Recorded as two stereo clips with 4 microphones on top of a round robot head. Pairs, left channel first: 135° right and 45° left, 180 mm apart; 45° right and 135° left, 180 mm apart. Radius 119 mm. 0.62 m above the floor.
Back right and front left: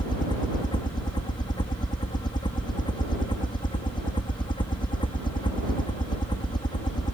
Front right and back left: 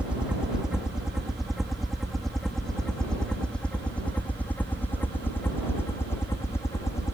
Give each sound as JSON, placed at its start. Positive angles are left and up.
{"t": 0.0, "sound": "a helicopter", "azimuth_deg": -150}